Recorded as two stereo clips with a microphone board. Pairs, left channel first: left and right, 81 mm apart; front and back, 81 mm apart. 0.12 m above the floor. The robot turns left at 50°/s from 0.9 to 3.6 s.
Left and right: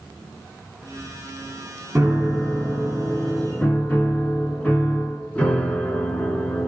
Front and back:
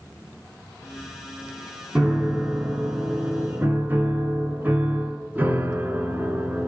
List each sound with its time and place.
1.9 s a piano: 135° right, 1.0 m; by 6.7 s 145° left, 1.0 m